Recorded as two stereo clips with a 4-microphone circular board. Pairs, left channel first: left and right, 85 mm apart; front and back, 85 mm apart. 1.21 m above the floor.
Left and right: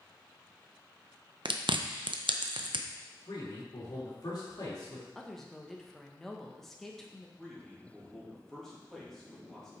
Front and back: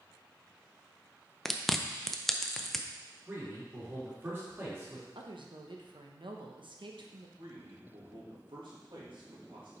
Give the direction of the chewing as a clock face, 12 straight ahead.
3 o'clock.